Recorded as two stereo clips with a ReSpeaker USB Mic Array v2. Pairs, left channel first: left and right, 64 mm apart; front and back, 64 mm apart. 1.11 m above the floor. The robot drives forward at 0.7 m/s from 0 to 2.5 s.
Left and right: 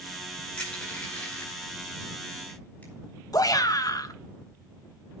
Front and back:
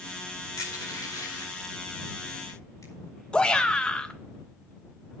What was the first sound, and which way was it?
Crushing, 20° left.